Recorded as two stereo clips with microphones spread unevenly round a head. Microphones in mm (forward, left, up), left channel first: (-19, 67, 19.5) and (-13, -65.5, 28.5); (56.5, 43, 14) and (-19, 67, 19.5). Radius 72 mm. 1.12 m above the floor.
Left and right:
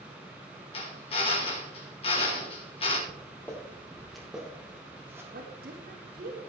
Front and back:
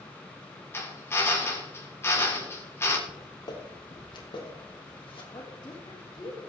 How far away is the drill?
About 3 m.